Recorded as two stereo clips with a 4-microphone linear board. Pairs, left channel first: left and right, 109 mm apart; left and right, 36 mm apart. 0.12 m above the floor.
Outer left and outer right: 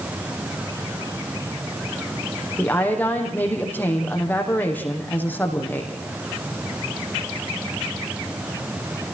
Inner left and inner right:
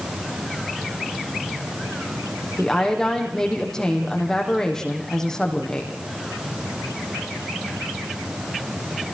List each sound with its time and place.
2.6 s a woman speaking: 15° left (ahead or behind), 5.5 m